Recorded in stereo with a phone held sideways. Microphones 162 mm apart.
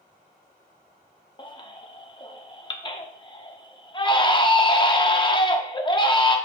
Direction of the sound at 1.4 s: 30° left (ahead or behind).